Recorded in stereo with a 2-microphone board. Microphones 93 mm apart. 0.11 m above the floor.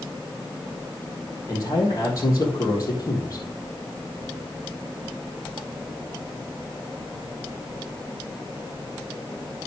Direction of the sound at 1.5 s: 35° left (ahead or behind).